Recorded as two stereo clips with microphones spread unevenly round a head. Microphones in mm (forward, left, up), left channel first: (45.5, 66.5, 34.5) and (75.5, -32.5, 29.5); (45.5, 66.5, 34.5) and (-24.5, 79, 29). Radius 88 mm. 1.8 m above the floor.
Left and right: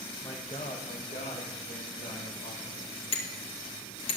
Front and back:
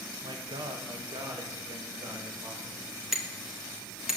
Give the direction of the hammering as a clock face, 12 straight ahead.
9 o'clock.